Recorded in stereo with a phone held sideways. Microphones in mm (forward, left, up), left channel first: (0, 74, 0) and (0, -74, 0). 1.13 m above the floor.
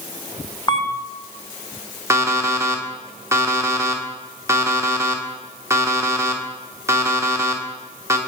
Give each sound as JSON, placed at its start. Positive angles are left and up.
{"t": 0.7, "sound": "a camera shutter", "side_deg": 30, "distance_m": 0.7}
{"t": 2.1, "sound": "an alarm clock", "side_deg": -20, "distance_m": 1.0}